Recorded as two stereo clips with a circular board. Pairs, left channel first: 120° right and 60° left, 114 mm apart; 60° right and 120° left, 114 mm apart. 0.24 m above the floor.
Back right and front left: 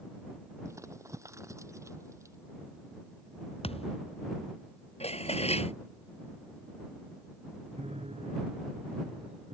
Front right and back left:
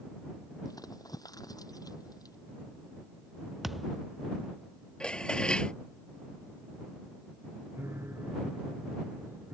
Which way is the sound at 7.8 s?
50° left.